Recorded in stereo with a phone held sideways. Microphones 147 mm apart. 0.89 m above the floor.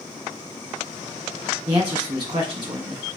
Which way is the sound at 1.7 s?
35° right (ahead or behind).